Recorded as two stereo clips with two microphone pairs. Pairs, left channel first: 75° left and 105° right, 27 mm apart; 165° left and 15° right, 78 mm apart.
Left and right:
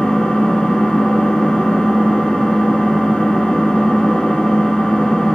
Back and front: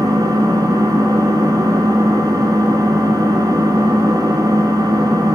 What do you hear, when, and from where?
0.0 s an engine running: 15° left, 2 m